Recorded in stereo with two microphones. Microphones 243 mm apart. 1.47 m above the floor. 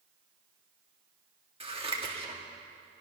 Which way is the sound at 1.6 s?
20° right (ahead or behind).